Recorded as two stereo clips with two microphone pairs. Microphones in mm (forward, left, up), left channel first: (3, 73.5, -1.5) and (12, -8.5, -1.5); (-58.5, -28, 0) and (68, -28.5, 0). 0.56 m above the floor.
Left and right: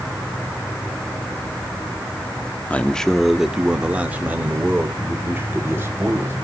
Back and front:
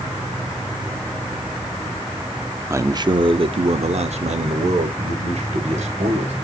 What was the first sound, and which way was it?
A man speaking, 50° left.